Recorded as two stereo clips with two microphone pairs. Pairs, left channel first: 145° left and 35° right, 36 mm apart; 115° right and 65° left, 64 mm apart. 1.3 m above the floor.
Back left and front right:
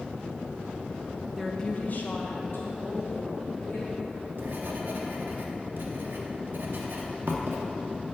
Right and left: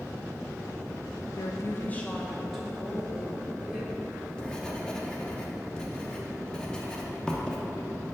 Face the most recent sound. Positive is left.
turn(degrees=-35)